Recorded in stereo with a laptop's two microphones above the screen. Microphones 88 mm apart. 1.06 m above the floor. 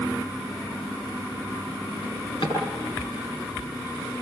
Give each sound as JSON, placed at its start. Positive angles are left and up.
{"t": 2.0, "sound": "a drawer", "side_deg": 65, "distance_m": 8.0}